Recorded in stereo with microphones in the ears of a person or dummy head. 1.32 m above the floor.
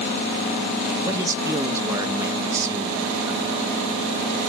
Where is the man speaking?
15° right (ahead or behind), 1.9 m.